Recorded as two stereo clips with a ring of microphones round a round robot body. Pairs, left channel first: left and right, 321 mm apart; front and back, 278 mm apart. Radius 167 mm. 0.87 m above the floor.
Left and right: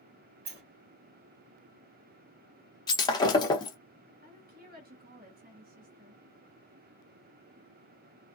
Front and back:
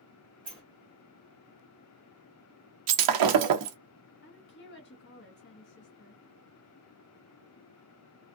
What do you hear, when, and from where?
0.5 s a sliding door: 105° right, 1.4 m
2.9 s breaking glass: 170° left, 0.6 m
4.2 s a woman speaking: 35° right, 1.3 m